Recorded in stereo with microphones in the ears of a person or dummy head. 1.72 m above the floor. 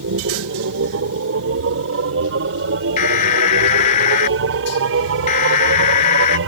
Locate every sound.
0.0 s a machine running: 85° right
3.0 s an alarm: 40° left (ahead or behind)